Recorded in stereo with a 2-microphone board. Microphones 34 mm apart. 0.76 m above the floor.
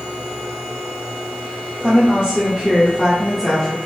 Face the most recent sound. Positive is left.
turn(degrees=5)  # may be behind; listen again after turning